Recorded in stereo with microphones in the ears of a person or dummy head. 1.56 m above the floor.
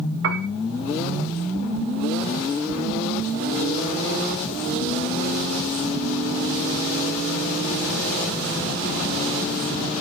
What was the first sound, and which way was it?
A piano, 65° right (ahead or behind).